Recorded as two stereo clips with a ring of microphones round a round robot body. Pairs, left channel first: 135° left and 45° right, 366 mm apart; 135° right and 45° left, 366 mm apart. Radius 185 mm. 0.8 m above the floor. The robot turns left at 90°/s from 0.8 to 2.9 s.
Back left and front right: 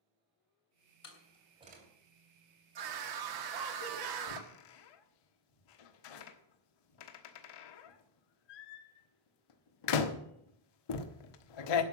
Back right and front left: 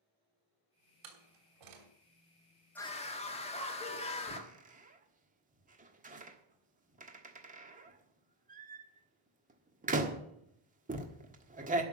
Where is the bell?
I don't hear a bell.